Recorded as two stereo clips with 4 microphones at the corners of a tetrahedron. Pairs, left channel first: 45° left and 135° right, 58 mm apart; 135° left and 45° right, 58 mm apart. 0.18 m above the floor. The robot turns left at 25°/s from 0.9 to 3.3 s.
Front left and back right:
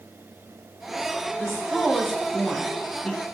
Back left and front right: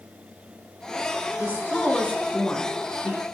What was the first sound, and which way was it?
A woman speaking, 150° left.